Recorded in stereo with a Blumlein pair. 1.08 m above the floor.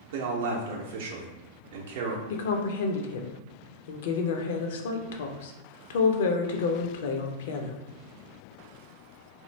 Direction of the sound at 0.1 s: 55° right.